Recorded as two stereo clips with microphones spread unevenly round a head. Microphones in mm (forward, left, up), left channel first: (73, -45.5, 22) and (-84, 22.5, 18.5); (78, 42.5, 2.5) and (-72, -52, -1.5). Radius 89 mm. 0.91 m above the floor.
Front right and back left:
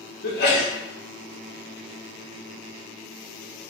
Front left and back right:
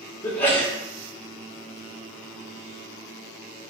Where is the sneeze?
45° right, 1.7 m.